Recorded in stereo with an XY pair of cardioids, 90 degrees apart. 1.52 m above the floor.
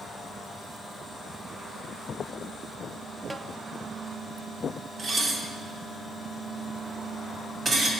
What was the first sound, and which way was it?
A snare drum, 20° right.